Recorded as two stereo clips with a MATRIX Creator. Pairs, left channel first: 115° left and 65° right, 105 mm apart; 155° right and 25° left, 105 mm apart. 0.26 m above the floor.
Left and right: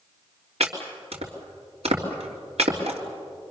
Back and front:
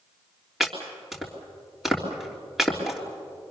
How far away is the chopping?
About 3.5 m.